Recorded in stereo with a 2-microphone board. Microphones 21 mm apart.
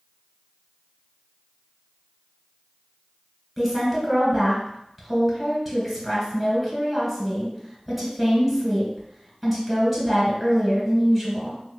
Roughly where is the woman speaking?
Centre.